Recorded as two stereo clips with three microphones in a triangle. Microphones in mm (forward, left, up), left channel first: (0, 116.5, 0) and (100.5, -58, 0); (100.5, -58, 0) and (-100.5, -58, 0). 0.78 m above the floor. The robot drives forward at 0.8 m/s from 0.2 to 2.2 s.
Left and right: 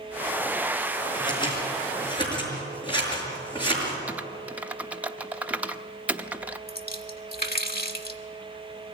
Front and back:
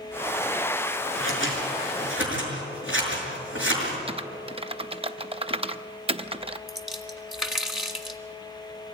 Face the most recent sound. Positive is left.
turn(degrees=90)